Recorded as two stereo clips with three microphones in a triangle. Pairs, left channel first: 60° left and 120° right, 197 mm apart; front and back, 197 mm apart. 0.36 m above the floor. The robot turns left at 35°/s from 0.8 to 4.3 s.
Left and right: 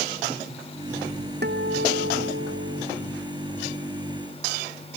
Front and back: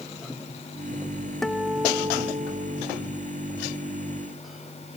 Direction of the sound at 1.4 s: 90° right.